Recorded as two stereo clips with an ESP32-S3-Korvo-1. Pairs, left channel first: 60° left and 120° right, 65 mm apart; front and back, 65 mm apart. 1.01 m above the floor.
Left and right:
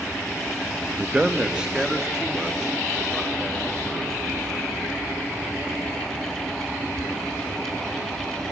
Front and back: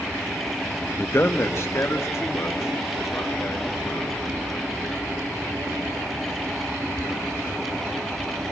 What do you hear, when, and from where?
1.0 s a man speaking: 55° right, 0.7 m; by 4.1 s 40° right, 4.5 m